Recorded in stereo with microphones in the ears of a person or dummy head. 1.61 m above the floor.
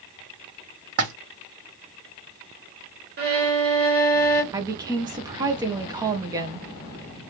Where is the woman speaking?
15° right (ahead or behind), 0.7 m.